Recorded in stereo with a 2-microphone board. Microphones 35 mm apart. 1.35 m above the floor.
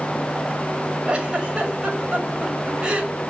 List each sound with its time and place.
1.1 s a giggle: 30° right (ahead or behind), 6.5 m